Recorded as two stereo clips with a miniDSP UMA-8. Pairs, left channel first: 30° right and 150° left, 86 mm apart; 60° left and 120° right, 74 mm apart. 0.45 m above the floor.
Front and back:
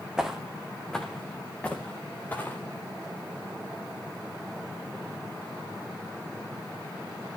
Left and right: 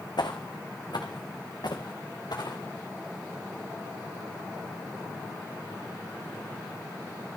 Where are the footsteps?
70° left, 1.5 m; by 2.6 s 35° left, 3.5 m.